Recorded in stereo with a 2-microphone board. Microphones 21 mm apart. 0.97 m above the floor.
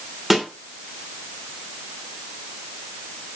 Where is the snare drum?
10° right (ahead or behind), 3 m.